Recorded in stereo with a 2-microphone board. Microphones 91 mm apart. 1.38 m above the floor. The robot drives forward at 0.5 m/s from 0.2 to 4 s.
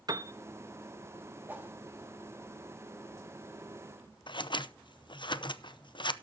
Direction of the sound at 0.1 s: 45° right (ahead or behind).